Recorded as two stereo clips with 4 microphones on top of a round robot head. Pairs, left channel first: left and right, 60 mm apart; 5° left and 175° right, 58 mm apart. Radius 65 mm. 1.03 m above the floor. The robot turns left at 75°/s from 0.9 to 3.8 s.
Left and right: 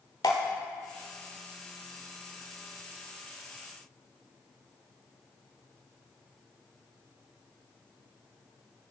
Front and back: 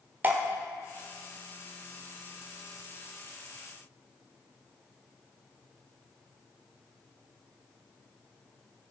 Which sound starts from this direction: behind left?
Dripping, at 0.2 s.